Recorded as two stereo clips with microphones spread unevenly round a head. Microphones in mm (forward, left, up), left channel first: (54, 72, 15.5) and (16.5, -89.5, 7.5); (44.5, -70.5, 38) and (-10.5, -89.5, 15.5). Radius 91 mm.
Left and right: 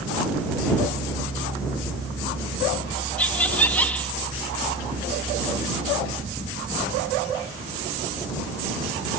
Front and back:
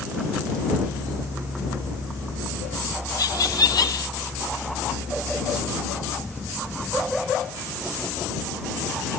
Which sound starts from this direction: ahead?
Laughter, at 3.2 s.